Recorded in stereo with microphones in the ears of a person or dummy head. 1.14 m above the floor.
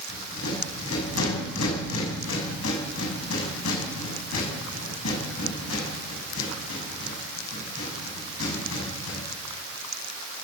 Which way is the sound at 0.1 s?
80° left.